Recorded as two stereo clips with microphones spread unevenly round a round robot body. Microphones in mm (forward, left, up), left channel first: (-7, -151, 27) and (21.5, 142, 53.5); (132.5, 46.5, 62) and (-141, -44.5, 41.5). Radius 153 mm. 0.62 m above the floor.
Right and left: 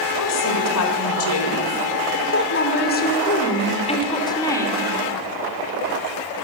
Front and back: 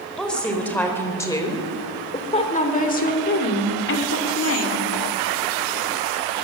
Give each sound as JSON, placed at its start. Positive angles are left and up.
{"t": 0.2, "sound": "a woman speaking", "azimuth_deg": -70, "distance_m": 3.5}